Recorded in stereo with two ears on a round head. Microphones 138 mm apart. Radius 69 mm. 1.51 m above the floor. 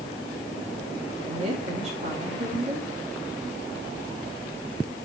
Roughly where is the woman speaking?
Right.